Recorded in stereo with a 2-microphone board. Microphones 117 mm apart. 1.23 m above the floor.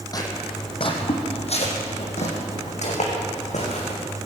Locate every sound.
0.1 s footsteps: 30° left (ahead or behind), 3 m; by 4.0 s 75° left (ahead or behind), 6 m